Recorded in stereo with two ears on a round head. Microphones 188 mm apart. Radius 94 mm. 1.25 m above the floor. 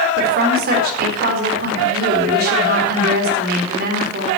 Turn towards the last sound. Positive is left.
turn(degrees=-50)  # may be behind; listen again after turning